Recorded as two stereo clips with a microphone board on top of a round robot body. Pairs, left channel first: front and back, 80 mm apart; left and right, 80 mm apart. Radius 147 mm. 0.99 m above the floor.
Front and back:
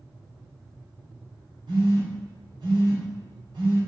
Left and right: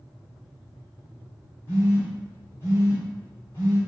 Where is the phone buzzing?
145° left, 0.8 m.